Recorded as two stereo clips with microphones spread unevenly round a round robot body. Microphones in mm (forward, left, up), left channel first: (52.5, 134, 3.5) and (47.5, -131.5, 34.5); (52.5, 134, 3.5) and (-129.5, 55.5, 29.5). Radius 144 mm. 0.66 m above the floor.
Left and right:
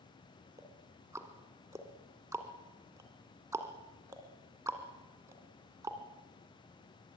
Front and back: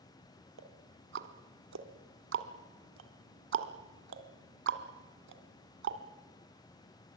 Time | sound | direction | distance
0.6 | ticking | 170° right | 1.7 m